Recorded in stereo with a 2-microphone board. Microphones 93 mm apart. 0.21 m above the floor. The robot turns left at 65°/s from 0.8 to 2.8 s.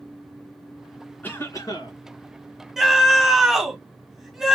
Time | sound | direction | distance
1.2 | a cough | 160° left | 2.5 m
2.8 | a scream | 5° right (ahead or behind) | 1.3 m